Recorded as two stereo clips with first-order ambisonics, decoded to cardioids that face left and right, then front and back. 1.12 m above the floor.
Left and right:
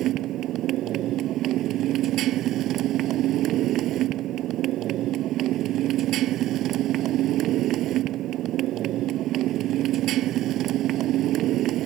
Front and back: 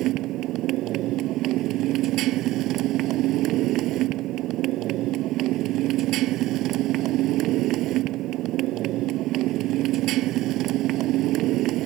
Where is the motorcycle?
140° right.